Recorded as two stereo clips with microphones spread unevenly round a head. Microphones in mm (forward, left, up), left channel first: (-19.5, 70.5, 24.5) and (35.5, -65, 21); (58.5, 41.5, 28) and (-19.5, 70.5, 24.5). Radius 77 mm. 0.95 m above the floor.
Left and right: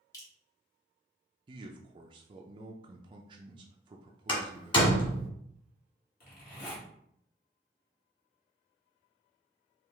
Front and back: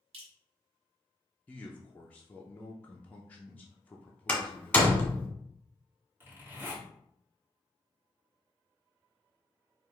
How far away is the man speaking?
About 0.5 m.